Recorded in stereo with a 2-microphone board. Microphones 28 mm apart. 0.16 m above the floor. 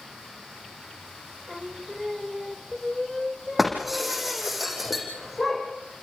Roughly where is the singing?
Right.